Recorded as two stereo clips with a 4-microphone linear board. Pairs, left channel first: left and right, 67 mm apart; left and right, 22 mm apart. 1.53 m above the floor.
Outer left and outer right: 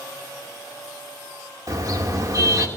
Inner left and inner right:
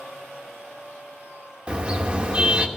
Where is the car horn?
55° right (ahead or behind), 2.5 m.